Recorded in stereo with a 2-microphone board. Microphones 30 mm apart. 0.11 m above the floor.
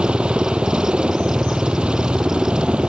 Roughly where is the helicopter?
Right.